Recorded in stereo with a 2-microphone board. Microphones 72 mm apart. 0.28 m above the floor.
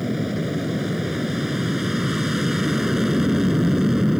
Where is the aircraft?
5° right (ahead or behind).